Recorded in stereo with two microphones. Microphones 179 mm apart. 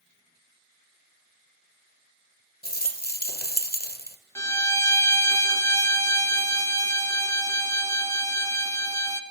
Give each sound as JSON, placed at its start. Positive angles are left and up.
{"t": 2.6, "sound": "a rattle", "side_deg": 55, "distance_m": 1.3}
{"t": 4.3, "sound": "a violin", "side_deg": 20, "distance_m": 0.9}